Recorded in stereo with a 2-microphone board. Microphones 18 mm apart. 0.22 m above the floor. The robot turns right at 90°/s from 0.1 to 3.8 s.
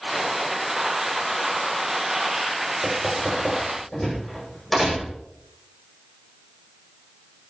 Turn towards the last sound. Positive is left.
turn(degrees=10)  # may be behind; listen again after turning